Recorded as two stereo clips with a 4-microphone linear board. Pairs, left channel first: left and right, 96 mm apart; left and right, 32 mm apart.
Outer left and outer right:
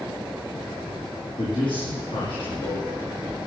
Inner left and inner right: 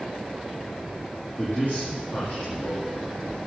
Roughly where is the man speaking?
Left.